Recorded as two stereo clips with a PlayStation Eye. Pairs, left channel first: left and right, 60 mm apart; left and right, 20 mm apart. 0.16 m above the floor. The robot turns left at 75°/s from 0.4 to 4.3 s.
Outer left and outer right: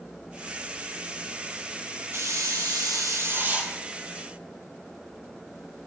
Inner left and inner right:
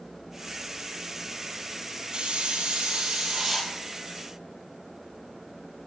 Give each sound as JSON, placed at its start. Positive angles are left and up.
{"t": 2.1, "sound": "a hiss", "azimuth_deg": -45, "distance_m": 2.5}